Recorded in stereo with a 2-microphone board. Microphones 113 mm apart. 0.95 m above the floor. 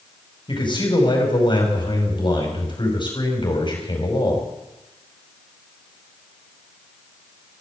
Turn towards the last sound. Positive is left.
turn(degrees=40)  # may be behind; listen again after turning